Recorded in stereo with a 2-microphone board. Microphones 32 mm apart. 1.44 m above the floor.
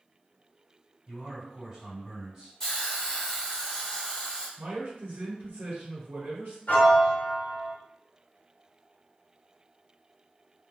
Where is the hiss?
15° left (ahead or behind), 1.0 m.